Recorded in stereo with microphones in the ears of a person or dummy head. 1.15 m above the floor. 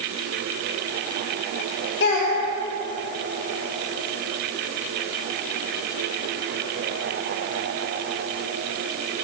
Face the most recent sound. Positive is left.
turn(degrees=55)  # may be behind; listen again after turning